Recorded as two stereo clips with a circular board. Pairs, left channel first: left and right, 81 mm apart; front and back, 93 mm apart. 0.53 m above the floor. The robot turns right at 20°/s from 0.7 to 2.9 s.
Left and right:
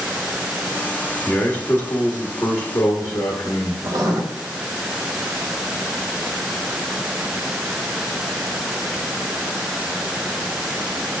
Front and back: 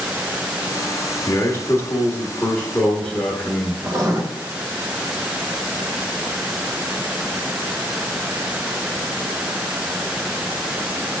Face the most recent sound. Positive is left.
turn(degrees=-125)